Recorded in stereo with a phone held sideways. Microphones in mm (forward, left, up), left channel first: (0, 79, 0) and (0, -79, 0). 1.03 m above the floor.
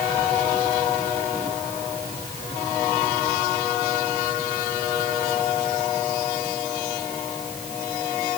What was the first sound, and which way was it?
Only background noise.